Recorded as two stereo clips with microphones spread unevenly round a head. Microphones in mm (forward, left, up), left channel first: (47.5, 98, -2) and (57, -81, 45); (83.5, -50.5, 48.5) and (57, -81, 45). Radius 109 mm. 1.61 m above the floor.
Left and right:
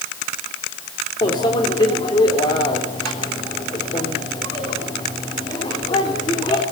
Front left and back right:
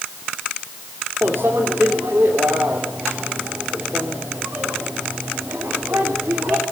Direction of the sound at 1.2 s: 170° left.